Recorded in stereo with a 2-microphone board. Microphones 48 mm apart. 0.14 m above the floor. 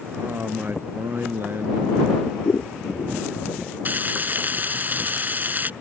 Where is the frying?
40° right (ahead or behind).